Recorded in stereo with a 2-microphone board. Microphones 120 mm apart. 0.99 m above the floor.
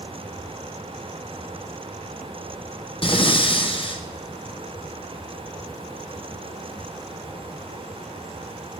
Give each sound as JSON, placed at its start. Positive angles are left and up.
{"t": 3.0, "sound": "breathing", "side_deg": 45, "distance_m": 0.8}